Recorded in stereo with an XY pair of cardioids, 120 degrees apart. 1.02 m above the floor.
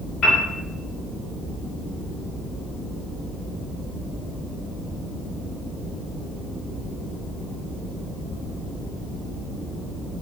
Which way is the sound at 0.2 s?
60° left.